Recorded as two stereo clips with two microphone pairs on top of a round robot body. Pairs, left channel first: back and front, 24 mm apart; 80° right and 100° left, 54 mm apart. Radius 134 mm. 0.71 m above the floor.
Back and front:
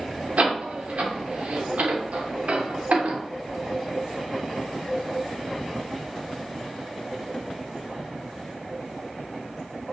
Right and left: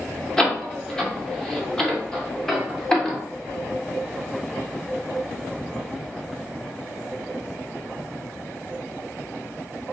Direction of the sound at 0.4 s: 5° left.